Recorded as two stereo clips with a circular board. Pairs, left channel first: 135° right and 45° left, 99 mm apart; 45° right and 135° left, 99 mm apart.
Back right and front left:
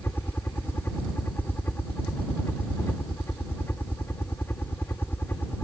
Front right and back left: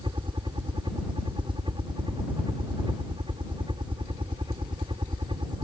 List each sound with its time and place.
0.0 s a helicopter: 160° left